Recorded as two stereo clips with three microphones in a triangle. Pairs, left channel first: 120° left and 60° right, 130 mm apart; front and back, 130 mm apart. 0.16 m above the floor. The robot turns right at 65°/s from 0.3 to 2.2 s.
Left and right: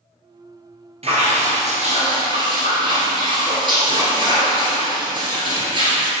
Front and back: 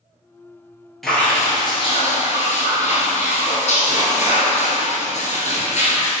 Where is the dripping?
90° right, 1.9 m; by 6.1 s 15° right, 1.9 m.